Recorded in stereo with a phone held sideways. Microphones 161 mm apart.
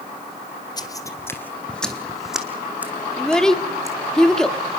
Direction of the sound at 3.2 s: 5° left (ahead or behind).